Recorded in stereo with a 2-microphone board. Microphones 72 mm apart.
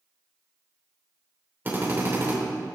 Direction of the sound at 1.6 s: 30° right (ahead or behind).